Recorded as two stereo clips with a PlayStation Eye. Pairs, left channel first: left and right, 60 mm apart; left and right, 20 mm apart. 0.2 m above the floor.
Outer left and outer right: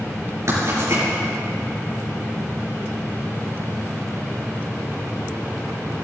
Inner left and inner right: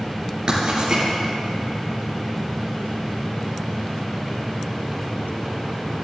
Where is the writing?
55° right (ahead or behind), 4 m.